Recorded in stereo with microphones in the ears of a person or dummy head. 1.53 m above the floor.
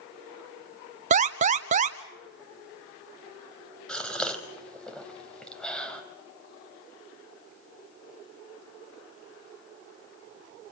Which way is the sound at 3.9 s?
5° left (ahead or behind).